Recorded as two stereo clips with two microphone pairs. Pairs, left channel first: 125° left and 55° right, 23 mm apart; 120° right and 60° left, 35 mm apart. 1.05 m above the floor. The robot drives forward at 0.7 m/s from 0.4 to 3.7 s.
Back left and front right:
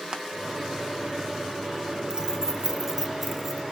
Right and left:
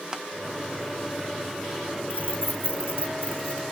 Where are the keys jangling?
110° right, 1.4 m; by 3.6 s 140° right, 2 m.